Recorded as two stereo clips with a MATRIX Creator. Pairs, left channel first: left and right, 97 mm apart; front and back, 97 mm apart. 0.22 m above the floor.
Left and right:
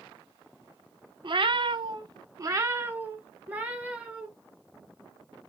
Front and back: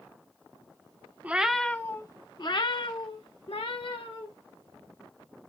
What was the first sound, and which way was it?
A cat meowing, 110° right.